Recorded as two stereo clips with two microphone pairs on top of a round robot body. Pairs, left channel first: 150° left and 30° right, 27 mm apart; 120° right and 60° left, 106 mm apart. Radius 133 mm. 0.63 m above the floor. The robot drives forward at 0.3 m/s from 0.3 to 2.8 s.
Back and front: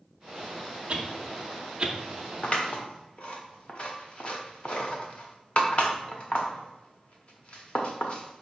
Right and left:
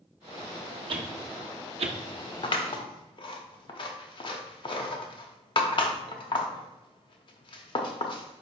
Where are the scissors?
160° right, 0.7 m.